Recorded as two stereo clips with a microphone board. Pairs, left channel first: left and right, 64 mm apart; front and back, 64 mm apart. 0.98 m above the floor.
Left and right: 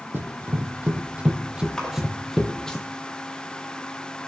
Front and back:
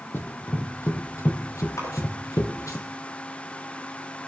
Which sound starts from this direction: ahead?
A splash, at 1.8 s.